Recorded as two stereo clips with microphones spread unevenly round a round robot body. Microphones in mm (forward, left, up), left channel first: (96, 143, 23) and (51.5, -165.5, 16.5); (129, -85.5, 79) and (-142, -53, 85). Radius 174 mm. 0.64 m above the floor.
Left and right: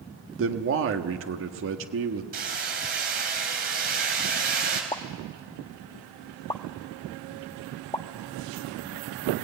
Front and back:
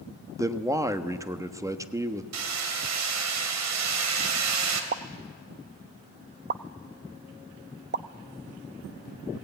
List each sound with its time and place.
0.4 s a man speaking: 110° right, 1.4 m
2.3 s hammering: 165° right, 2.5 m
4.9 s a pop: 150° left, 0.6 m